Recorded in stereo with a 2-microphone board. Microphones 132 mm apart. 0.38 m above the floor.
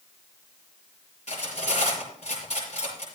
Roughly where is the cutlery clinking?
Left.